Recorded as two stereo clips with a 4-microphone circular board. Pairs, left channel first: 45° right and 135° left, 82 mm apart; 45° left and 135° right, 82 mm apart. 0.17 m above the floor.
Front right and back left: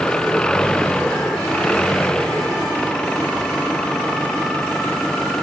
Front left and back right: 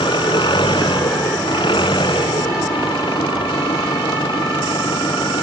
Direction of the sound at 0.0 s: 35° left.